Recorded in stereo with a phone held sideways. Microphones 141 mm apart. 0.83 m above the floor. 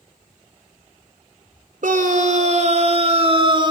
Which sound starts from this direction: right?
A scream, at 1.8 s.